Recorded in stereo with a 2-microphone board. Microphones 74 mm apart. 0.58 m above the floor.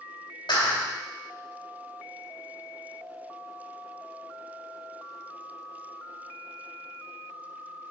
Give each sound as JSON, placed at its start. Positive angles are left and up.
{"t": 0.5, "sound": "a clap", "side_deg": 75, "distance_m": 2.5}